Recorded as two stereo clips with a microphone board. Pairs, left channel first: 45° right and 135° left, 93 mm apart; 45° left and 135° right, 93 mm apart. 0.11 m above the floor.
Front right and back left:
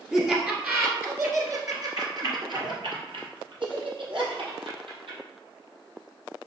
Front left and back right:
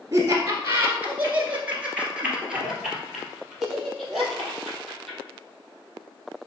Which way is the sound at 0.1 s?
150° right.